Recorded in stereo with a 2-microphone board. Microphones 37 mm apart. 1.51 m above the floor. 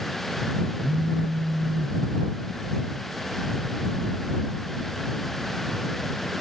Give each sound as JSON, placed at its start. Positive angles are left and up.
{"t": 0.8, "sound": "a phone buzzing", "side_deg": -55}